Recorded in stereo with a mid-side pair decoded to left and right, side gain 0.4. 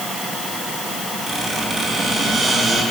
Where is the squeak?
40° right, 8.5 m.